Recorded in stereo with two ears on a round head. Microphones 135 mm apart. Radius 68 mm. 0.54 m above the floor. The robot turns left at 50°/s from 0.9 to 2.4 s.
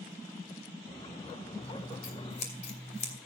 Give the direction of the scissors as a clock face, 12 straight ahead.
9 o'clock.